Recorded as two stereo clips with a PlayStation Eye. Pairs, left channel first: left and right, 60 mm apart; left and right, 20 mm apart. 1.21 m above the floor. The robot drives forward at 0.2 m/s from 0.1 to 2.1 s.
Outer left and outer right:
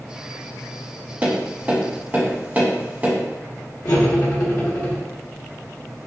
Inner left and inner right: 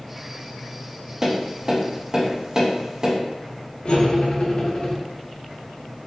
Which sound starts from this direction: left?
Cutlery clinking, at 3.9 s.